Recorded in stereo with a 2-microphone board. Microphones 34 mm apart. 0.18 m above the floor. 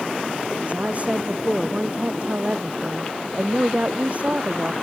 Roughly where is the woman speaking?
Right.